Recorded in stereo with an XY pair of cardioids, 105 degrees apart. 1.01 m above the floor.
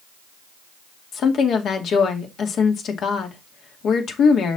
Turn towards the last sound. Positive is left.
turn(degrees=65)